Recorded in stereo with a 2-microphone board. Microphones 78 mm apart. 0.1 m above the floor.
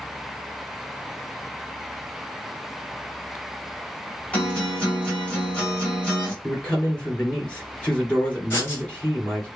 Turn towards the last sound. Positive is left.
turn(degrees=30)  # may be behind; listen again after turning